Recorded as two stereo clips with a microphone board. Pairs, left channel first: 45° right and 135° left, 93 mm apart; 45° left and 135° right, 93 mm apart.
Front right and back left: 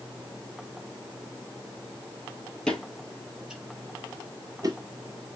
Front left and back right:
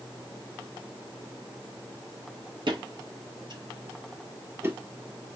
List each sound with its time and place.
2.7 s footsteps: 125° right, 1.3 m; by 4.8 s 165° left, 1.0 m